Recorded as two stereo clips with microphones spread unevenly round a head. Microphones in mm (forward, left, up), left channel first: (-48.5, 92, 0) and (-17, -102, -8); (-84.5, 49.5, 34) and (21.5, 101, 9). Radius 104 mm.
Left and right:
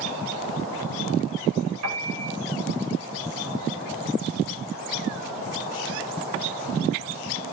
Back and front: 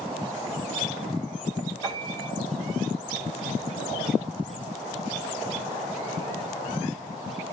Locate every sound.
1.8 s a piano: 80° right, 6.5 m